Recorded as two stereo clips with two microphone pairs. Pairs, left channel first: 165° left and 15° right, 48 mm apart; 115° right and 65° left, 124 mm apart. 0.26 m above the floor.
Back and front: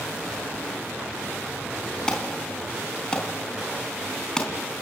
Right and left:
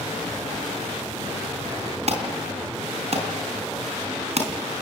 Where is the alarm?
90° left, 3.5 m.